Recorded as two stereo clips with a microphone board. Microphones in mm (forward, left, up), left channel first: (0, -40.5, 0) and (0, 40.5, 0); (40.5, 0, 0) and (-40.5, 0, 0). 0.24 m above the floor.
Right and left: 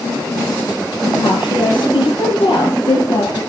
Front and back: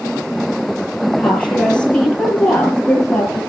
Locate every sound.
1.2 s a woman speaking: 80° right, 7 m